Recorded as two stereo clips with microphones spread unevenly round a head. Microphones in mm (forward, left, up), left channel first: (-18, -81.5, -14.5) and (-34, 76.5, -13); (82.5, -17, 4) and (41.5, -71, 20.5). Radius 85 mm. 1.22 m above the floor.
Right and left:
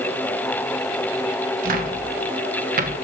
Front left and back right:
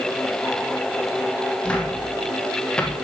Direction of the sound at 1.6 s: 125° left.